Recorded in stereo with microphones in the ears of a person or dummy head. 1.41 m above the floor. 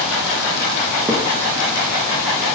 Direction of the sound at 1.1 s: 10° right (ahead or behind).